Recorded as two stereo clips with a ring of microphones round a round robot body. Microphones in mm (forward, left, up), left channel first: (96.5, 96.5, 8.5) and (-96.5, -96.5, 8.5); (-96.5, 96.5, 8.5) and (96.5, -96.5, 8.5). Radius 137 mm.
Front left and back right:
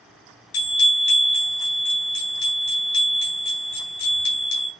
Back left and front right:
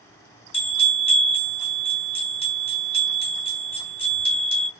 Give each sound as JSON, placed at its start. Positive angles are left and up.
{"t": 0.5, "sound": "a bell", "azimuth_deg": 65, "distance_m": 2.5}